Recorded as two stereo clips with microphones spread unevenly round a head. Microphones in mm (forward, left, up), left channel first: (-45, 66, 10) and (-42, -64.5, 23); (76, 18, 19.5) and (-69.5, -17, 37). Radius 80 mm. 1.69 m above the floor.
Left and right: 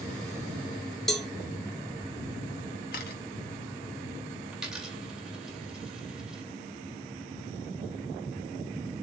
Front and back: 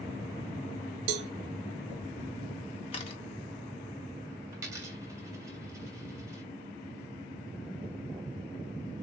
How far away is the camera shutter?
About 1.2 m.